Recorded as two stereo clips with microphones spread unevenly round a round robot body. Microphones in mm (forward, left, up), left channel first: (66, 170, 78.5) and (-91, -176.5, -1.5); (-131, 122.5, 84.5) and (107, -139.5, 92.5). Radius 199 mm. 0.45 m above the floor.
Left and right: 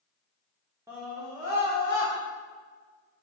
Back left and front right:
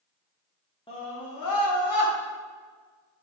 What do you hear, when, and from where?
0.9 s a scream: 165° right, 0.9 m; by 2.1 s 130° left, 2.0 m